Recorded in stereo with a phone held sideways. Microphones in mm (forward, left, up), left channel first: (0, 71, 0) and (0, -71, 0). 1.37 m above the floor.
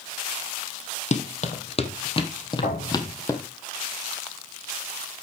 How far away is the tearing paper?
No tearing paper in this recording.